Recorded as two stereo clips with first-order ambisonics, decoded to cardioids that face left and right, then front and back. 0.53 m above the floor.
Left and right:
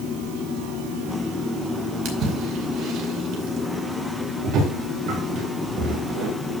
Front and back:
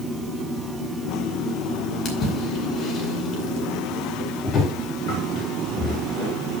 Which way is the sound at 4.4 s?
50° right.